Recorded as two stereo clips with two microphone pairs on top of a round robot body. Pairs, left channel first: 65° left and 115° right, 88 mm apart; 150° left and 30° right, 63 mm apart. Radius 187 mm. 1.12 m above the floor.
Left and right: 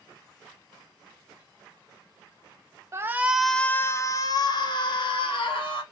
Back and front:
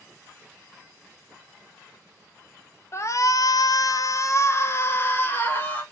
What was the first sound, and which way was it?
A shout, 165° right.